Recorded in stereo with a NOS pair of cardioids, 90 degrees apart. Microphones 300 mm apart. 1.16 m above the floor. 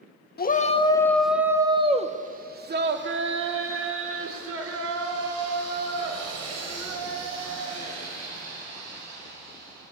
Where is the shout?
30° left, 1.7 m; by 9.9 s 65° right, 10 m.